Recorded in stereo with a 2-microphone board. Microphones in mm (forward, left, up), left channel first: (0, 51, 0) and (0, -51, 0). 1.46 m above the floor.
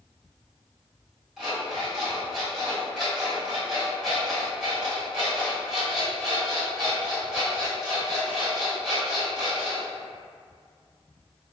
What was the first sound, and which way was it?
An alarm clock, 5° right (ahead or behind).